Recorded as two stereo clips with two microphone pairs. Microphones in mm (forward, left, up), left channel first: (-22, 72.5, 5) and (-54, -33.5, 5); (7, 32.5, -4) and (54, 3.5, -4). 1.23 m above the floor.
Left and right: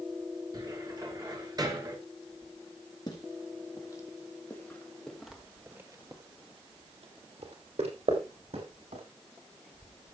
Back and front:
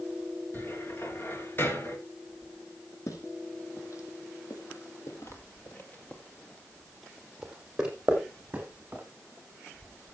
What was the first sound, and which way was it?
A cupboard door, 160° right.